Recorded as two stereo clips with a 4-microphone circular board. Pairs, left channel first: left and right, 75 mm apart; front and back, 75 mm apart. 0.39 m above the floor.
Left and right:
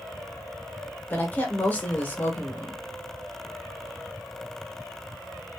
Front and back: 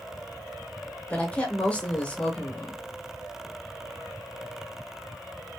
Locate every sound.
1.1 s a woman speaking: 50° left, 1.1 m